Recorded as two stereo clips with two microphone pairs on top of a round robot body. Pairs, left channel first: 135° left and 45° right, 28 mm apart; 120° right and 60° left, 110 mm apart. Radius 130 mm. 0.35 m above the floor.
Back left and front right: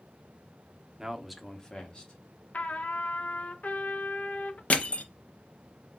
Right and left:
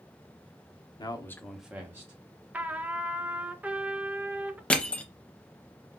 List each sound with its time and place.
1.0 s a man speaking: 90° right, 0.9 m; by 2.4 s 90° left, 1.7 m
2.5 s a trumpet: 130° left, 0.7 m
4.7 s crushing: 165° left, 0.6 m